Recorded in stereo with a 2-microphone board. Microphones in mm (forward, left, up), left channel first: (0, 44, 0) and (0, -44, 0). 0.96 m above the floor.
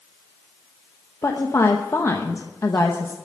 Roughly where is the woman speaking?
Left.